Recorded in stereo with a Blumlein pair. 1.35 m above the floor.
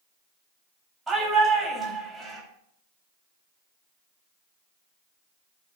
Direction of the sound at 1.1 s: 15° right.